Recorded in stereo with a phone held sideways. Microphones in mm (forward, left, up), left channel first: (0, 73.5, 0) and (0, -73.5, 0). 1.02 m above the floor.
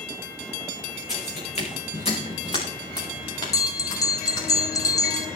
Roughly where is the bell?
Left.